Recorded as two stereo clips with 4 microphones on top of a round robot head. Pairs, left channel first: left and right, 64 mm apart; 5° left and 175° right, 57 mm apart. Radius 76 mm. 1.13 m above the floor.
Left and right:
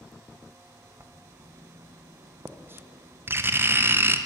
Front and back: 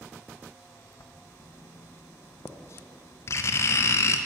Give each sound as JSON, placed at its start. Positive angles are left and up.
{"t": 1.0, "sound": "writing", "azimuth_deg": -35, "distance_m": 0.5}